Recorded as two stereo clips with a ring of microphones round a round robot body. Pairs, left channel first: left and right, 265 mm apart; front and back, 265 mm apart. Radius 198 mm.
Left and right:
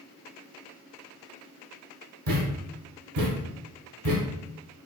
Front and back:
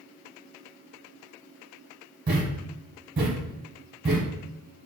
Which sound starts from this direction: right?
A thud, at 2.3 s.